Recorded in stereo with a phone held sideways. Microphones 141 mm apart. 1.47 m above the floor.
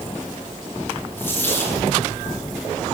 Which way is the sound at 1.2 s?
15° left (ahead or behind).